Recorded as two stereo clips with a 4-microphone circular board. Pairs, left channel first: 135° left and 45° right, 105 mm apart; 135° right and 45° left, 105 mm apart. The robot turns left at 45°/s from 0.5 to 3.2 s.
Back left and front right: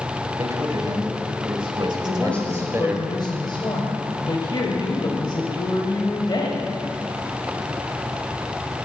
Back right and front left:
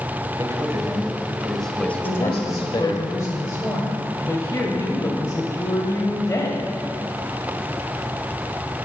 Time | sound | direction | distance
0.4 | a man speaking | straight ahead | 1.4 m
2.0 | a woman speaking | 135° right | 1.5 m